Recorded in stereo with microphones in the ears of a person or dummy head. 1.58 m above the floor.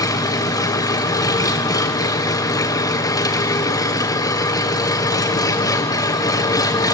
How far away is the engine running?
About 0.8 m.